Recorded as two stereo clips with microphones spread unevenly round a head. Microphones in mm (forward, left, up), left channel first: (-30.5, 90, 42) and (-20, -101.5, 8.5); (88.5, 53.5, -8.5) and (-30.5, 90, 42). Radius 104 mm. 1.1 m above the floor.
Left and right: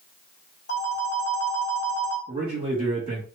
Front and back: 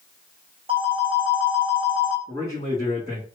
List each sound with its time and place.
0.7 s a phone ringing: 125° left, 1.8 m
2.3 s a man speaking: 145° right, 1.9 m